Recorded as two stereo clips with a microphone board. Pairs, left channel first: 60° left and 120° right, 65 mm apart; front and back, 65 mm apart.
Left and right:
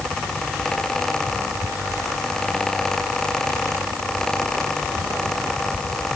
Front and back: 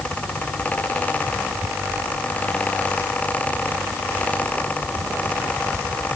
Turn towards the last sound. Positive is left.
No sound to turn to.